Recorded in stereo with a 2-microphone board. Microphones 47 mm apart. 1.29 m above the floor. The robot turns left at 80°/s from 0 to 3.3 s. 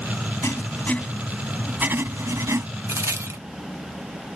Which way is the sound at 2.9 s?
65° right.